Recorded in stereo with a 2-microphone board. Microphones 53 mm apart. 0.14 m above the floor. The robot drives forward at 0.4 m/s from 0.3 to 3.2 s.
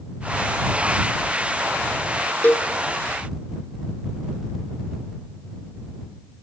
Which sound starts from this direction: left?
A cowbell, at 2.4 s.